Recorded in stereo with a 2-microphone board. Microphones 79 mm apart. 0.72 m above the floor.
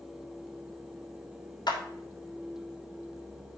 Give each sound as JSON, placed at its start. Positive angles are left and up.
{"t": 1.7, "sound": "a clap", "side_deg": 60, "distance_m": 1.6}